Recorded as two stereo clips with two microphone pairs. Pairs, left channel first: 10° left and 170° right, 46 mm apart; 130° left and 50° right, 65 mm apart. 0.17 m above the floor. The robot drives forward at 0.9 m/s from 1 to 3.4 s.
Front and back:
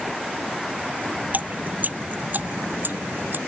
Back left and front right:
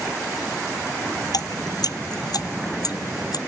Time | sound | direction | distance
1.3 | dripping | 140° left | ?